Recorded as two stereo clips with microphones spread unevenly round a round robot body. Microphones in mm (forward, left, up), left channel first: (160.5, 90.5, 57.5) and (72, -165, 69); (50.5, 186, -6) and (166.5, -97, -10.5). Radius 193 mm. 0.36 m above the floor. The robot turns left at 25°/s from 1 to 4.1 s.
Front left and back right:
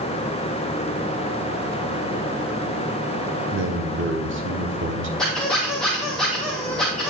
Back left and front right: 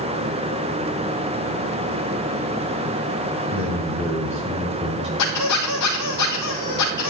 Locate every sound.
3.5 s a man speaking: 115° right, 1.4 m; by 5.1 s 130° right, 1.4 m
5.2 s a squeak: 160° left, 1.1 m